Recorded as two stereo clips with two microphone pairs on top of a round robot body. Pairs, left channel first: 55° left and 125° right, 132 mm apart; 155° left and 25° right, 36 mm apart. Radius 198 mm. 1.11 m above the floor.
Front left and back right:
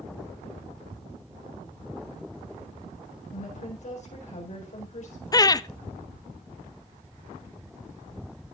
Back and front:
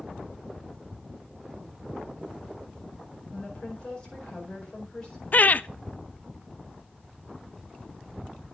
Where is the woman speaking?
85° left, 4.5 m.